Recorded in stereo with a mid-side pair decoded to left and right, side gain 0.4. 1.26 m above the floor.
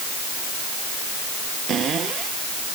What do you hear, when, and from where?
1.7 s a cupboard door: 65° right